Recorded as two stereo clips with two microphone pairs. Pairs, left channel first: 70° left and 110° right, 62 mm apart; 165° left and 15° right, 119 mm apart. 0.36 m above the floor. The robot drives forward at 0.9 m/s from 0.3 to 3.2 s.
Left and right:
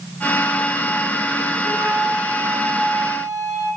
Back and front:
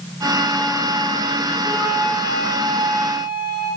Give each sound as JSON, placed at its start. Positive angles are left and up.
{"t": 1.6, "sound": "a flute", "azimuth_deg": -45, "distance_m": 6.5}